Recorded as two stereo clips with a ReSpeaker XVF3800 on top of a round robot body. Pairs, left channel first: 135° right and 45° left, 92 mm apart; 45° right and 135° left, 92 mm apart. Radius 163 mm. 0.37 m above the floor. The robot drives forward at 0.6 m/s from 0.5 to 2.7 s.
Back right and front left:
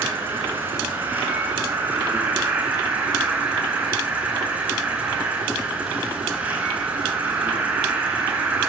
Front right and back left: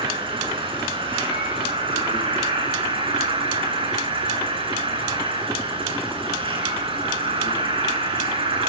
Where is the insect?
115° left, 9 m; by 8.7 s 120° left, 10 m.